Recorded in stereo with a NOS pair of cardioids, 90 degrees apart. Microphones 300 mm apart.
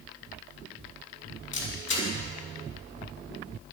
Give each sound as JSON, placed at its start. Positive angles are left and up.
{"t": 1.5, "sound": "a camera shutter", "azimuth_deg": 40, "distance_m": 6.5}